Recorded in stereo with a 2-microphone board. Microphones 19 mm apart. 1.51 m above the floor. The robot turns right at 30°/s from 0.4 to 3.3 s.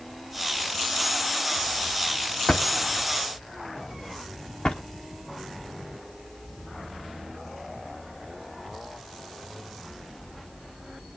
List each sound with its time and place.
2.5 s a drawer: 50° left (ahead or behind), 1.5 m